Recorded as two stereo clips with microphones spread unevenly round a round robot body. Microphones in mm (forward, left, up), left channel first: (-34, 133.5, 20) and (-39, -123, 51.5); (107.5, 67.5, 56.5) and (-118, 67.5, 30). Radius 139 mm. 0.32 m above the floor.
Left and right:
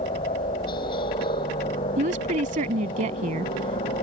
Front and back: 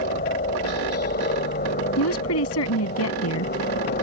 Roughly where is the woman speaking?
Ahead right.